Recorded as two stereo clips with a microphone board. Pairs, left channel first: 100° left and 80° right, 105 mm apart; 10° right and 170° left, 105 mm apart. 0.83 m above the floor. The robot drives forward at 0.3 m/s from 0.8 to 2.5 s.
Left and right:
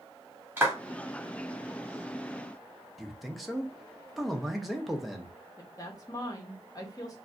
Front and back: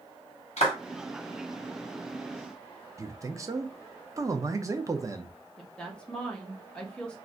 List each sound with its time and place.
0.6 s a clap: 5° right, 1.5 m
3.0 s a man speaking: 170° right, 0.6 m
5.6 s a woman speaking: 70° left, 0.9 m